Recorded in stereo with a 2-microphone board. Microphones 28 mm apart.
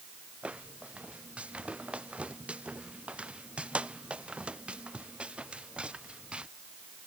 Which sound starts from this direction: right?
Footsteps, at 0.4 s.